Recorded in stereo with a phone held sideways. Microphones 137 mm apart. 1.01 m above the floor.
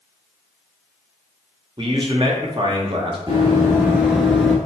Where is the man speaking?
40° right (ahead or behind), 0.7 m.